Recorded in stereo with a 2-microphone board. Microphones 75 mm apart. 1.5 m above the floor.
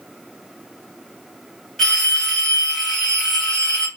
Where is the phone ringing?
5° left (ahead or behind), 1.7 m.